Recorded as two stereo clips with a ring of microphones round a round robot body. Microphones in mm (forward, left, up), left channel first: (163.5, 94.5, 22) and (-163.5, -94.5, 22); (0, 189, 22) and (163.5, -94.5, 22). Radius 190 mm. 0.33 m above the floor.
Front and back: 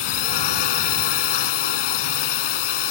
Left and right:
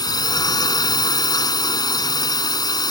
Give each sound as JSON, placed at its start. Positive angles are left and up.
{"t": 0.0, "sound": "a drone", "azimuth_deg": 40}